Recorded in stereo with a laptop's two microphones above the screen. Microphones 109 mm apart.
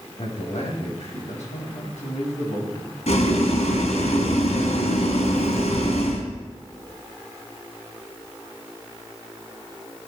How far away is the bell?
No bell in this recording.